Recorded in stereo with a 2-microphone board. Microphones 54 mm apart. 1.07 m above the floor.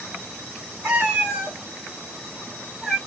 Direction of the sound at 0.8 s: 30° right (ahead or behind).